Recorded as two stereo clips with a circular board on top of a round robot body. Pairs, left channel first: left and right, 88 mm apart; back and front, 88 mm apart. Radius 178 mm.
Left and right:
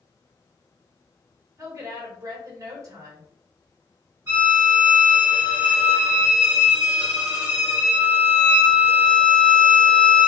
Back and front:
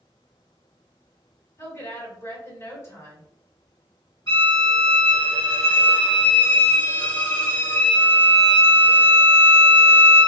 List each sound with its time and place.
1.6 s a woman speaking: 130° right, 1.6 m
4.3 s a violin: 135° right, 1.7 m